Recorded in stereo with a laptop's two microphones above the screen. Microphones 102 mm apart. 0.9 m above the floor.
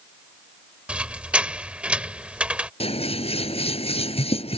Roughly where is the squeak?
Centre.